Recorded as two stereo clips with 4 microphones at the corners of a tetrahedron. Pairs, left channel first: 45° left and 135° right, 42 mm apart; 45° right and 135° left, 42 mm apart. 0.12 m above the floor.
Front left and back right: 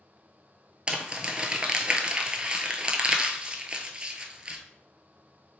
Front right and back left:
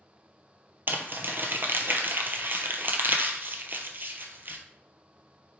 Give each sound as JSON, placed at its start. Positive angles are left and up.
{"t": 0.9, "sound": "crumpling", "azimuth_deg": 160, "distance_m": 0.5}